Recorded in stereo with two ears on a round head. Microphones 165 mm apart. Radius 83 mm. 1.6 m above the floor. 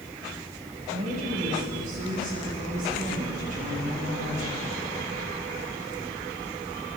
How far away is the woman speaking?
About 8 m.